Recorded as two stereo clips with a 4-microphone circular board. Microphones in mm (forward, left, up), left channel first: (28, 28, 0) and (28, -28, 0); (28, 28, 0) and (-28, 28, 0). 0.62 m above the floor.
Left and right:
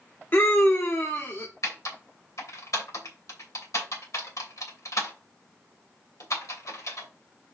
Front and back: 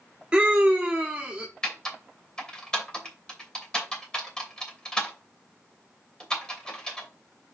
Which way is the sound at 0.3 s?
115° left.